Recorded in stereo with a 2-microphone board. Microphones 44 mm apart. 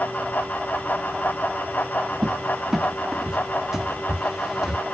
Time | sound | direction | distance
2.2 | a cupboard door | 15° right (ahead or behind) | 0.5 m